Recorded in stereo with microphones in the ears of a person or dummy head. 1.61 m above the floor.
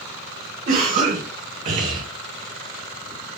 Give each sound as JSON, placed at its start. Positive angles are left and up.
{"t": 0.7, "sound": "a cough", "side_deg": -40, "distance_m": 1.1}